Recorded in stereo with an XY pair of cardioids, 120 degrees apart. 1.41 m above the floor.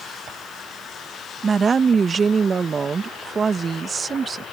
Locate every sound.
1.4 s a woman speaking: 30° right